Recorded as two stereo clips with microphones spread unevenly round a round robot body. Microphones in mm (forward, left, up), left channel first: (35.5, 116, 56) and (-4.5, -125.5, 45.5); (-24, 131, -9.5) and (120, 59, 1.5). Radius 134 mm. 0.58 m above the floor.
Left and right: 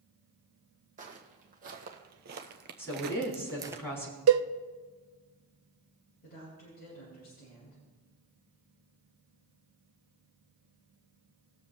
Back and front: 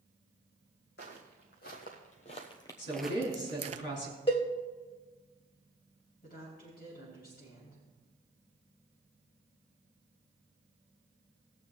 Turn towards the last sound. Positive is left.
turn(degrees=135)